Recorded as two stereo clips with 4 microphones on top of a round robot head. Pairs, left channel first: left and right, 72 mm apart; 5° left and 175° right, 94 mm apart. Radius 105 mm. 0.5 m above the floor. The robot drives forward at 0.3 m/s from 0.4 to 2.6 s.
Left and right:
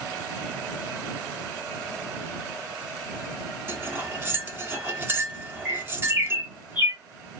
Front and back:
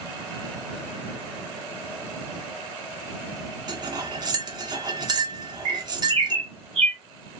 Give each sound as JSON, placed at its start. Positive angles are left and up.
{"t": 3.7, "sound": "cutlery clinking", "azimuth_deg": -145, "distance_m": 0.8}
{"t": 5.7, "sound": "a bird", "azimuth_deg": -160, "distance_m": 2.0}